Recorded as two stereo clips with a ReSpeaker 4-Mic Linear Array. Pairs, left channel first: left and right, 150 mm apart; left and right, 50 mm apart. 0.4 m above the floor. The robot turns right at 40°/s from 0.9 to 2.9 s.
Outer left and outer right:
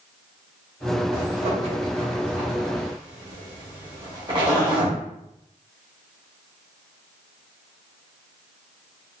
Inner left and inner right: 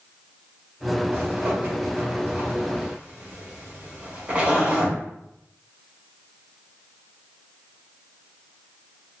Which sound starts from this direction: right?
A zipper, at 1.1 s.